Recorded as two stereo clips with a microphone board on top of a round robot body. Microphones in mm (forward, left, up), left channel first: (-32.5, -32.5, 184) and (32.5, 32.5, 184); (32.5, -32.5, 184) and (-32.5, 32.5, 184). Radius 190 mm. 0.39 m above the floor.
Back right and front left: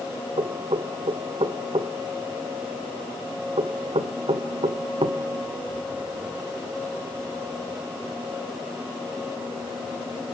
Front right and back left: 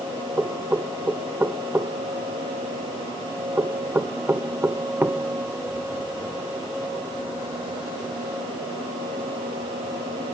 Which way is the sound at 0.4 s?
65° left.